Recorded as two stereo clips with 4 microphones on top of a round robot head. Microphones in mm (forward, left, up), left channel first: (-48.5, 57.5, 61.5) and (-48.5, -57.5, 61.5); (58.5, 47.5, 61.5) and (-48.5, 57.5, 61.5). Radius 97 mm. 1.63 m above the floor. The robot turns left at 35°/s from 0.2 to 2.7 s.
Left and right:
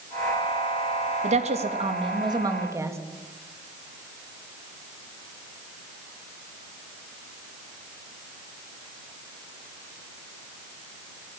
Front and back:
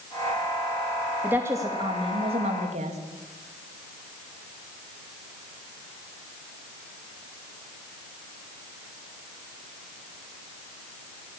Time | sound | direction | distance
1.2 | a woman speaking | 105° right | 3 m